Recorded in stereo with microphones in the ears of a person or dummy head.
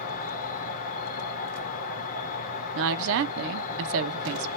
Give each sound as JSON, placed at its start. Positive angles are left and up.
{"t": 0.0, "sound": "an insect", "side_deg": 50, "distance_m": 0.9}
{"t": 2.8, "sound": "a woman speaking", "side_deg": -65, "distance_m": 0.7}